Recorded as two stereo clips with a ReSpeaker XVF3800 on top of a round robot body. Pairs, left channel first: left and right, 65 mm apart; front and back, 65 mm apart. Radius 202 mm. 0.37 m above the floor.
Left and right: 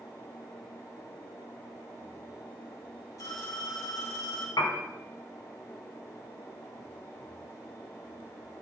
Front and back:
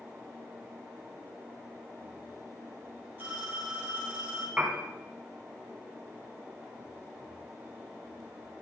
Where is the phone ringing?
120° left, 3.5 m.